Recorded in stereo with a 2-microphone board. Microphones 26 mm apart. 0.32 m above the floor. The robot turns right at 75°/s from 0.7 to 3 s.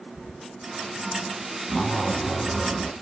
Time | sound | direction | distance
1.7 | a zipper | 115° left | 1.6 m